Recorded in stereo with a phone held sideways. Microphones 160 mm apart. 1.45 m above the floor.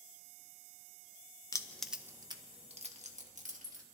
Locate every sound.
1.5 s keys jangling: 20° left (ahead or behind), 0.6 m; by 3.8 s 50° right (ahead or behind), 1.7 m